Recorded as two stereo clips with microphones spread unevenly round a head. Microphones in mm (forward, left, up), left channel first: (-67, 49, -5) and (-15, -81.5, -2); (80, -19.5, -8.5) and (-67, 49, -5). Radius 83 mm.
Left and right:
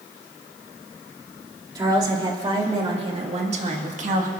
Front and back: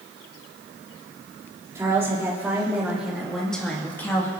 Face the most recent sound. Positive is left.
turn(degrees=-100)